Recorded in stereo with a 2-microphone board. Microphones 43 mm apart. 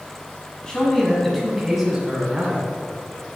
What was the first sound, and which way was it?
A man speaking, 15° left (ahead or behind).